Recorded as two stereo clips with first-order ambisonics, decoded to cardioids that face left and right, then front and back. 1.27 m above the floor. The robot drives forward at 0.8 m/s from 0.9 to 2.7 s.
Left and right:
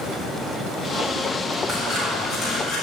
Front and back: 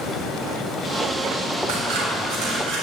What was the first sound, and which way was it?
Scissors, 165° right.